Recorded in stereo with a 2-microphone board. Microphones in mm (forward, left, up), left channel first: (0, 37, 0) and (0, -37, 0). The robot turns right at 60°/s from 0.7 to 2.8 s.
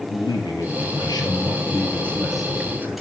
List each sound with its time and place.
0.1 s a man speaking: 80° left, 3.5 m; by 3.0 s 155° right, 3.5 m